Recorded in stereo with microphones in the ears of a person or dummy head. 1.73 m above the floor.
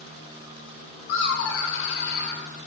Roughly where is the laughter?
Left.